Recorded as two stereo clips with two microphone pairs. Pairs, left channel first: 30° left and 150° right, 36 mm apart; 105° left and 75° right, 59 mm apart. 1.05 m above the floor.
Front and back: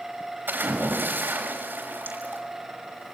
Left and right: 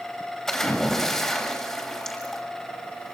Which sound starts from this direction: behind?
A splash, at 0.5 s.